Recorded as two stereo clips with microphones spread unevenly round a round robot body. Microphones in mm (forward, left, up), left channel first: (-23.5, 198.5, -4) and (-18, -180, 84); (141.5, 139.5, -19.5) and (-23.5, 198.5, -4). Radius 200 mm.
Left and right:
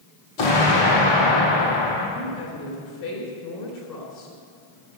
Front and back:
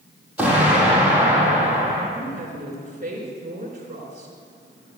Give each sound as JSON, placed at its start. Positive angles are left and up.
{"t": 0.4, "sound": "an explosion", "azimuth_deg": 80, "distance_m": 4.5}
{"t": 2.1, "sound": "a woman speaking", "azimuth_deg": 120, "distance_m": 4.0}